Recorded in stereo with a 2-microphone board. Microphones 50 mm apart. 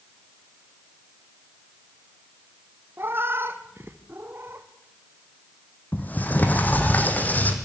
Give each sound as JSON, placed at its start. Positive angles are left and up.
{"t": 3.0, "sound": "a cat meowing", "side_deg": -50, "distance_m": 1.7}
{"t": 5.9, "sound": "a sliding door", "side_deg": 35, "distance_m": 3.0}